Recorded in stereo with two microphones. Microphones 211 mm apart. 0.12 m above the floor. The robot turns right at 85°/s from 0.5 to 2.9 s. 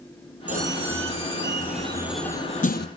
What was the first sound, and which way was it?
A squeak, 140° right.